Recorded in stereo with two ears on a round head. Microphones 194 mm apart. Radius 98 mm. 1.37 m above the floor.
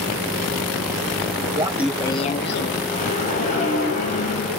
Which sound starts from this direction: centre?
Laughter, at 1.6 s.